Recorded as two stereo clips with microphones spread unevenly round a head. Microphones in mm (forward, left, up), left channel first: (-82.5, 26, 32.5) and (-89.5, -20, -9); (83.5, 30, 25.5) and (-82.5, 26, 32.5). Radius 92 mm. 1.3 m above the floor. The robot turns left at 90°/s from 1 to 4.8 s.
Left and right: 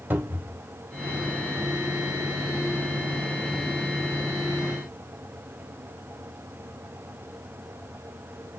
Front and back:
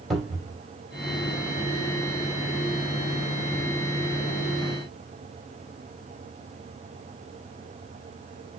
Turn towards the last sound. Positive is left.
turn(degrees=-70)